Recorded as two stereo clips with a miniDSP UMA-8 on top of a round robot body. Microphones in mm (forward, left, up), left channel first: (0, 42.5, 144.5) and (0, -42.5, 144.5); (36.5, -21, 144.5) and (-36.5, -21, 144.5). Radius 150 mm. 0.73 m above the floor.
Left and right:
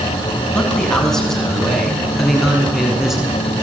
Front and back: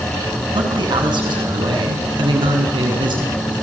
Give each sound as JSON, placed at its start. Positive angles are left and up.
{"t": 0.5, "sound": "a man speaking", "azimuth_deg": 170, "distance_m": 6.5}